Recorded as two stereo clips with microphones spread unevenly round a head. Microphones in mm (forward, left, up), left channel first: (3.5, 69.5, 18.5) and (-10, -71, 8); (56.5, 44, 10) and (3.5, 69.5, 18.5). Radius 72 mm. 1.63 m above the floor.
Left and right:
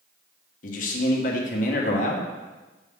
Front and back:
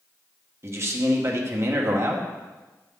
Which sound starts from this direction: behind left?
A man speaking, at 0.6 s.